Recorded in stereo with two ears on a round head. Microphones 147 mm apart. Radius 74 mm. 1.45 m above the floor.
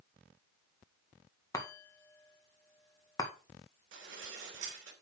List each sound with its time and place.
1.5 s a chime: 20° left (ahead or behind), 1.8 m
3.9 s dishes clattering: 75° right (ahead or behind), 3 m